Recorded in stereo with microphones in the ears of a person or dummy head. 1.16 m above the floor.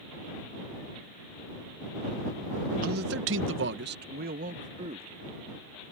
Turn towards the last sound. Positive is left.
turn(degrees=-30)  # may be behind; listen again after turning